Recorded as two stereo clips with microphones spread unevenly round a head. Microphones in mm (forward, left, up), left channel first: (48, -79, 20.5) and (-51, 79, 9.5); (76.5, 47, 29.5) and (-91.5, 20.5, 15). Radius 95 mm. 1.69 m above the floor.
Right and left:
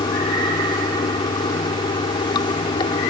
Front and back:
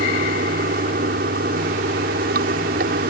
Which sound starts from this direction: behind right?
Running water, at 0.0 s.